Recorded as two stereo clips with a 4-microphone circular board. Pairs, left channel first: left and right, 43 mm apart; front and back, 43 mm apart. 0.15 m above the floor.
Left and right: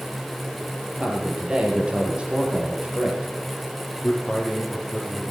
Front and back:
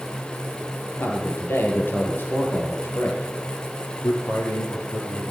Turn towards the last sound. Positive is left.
turn(degrees=5)